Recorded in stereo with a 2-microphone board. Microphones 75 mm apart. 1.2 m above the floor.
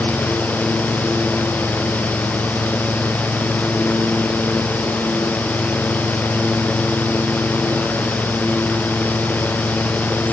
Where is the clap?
No clap in this recording.